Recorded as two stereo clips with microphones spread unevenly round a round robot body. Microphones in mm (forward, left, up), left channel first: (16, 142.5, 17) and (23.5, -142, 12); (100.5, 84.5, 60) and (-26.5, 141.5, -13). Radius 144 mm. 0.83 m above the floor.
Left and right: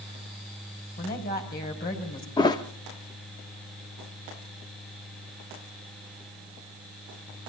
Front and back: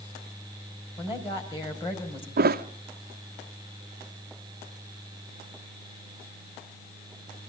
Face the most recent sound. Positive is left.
turn(degrees=170)